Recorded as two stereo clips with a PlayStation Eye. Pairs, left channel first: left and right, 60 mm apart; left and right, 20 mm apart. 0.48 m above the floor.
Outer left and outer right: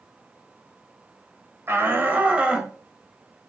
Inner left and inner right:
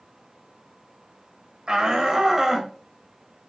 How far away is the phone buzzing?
No phone buzzing in this recording.